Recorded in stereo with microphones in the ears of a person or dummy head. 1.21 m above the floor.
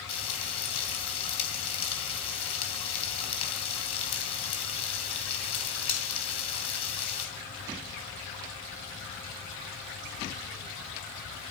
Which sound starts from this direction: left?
Frying, at 0.1 s.